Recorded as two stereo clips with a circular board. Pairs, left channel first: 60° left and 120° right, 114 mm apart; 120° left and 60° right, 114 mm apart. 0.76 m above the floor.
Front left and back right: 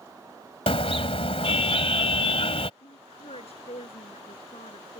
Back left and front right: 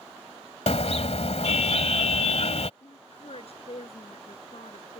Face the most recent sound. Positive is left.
turn(degrees=90)